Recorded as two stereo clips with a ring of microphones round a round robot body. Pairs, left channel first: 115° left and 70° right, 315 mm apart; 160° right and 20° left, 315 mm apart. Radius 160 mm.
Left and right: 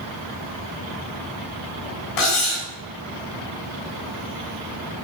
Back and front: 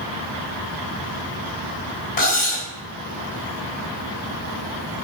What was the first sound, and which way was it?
Cutlery clinking, 140° left.